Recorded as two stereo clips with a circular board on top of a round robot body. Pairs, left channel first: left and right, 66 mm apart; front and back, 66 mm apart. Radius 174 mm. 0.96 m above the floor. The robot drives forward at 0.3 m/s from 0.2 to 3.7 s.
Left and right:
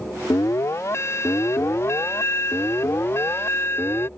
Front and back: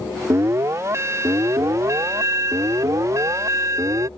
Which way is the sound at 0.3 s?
135° left.